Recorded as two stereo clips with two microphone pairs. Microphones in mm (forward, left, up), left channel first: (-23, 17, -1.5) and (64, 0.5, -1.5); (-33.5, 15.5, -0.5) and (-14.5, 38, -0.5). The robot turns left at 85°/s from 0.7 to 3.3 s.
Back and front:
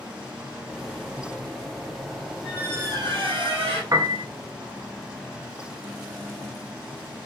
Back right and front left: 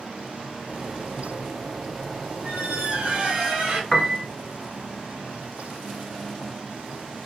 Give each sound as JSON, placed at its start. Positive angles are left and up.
{"t": 2.4, "sound": "a squeak", "azimuth_deg": 70, "distance_m": 1.4}
{"t": 3.9, "sound": "a piano", "azimuth_deg": -55, "distance_m": 0.7}